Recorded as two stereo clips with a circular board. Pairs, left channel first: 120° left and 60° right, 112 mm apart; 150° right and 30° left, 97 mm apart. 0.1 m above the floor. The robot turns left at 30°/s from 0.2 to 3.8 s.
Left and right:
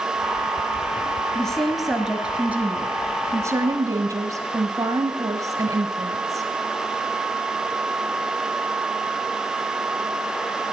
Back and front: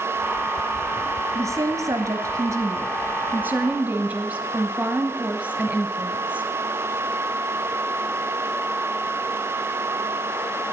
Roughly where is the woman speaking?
Ahead left.